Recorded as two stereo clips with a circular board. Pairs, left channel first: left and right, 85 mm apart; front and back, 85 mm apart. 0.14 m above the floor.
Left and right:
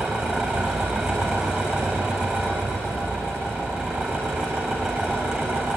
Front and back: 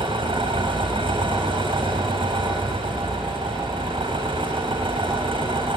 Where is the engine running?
175° right, 9 m.